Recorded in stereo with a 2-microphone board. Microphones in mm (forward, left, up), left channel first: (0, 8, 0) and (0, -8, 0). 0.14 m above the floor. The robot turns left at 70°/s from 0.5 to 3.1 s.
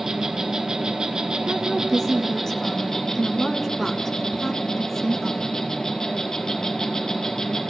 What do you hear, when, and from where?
0.0 s an insect: 50° right, 1.6 m; by 7.7 s 130° left, 1.6 m
1.5 s a woman speaking: 140° left, 1.2 m; by 5.5 s 25° left, 1.2 m